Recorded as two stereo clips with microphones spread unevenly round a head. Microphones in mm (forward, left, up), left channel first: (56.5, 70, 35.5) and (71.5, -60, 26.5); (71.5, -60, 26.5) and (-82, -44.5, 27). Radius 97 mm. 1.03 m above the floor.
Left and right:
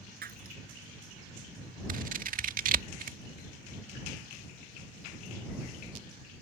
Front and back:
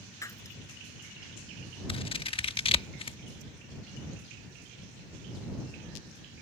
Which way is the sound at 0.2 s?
75° right.